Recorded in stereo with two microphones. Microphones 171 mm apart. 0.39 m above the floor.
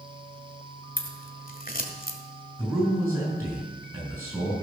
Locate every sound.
1.0 s scissors: 55° left (ahead or behind), 1.4 m
2.6 s a man speaking: 15° right (ahead or behind), 5.5 m